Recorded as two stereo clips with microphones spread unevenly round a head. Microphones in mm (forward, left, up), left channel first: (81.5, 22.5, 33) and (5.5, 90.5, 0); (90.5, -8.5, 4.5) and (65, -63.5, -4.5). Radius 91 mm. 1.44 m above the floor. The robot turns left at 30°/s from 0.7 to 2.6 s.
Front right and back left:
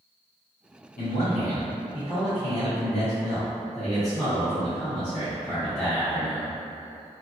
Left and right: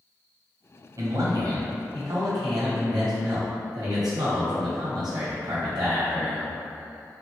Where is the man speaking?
80° right, 1.1 m; by 6.5 s 130° right, 1.1 m.